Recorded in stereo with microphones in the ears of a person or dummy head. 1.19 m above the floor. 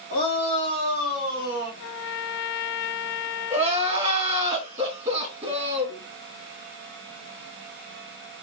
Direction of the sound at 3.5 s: 35° right (ahead or behind).